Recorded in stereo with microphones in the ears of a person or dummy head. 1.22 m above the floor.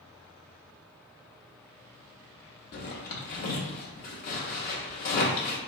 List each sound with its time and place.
2.7 s a zipper: 45° left (ahead or behind), 0.8 m